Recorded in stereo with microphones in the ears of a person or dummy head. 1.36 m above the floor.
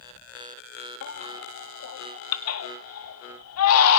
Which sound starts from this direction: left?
A baby crying, at 1.0 s.